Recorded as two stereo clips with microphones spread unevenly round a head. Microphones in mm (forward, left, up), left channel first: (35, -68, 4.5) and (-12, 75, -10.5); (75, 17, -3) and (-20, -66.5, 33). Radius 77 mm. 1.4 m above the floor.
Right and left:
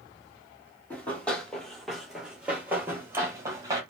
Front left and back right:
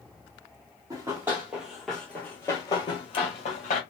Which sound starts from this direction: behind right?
Running footsteps, at 0.9 s.